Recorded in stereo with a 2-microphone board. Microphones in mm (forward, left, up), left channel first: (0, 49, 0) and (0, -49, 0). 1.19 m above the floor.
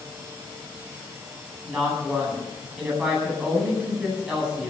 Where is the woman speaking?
10° right (ahead or behind), 10 m.